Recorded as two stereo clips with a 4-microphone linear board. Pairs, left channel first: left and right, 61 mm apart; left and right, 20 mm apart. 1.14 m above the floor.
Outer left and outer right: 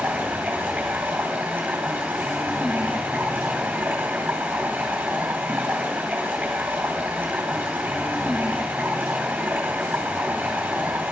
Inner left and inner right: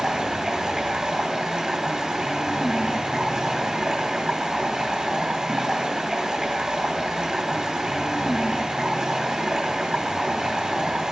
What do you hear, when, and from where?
0.0 s running water: 25° right (ahead or behind), 3 m